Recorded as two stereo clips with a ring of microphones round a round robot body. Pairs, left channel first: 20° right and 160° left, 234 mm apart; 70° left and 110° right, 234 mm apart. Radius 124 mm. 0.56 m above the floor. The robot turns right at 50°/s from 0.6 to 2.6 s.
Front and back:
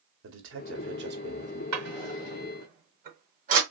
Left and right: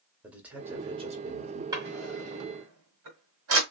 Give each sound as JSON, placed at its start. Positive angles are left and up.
{"t": 0.2, "sound": "a man speaking", "azimuth_deg": 165, "distance_m": 1.3}
{"t": 1.7, "sound": "a drawer", "azimuth_deg": 175, "distance_m": 1.7}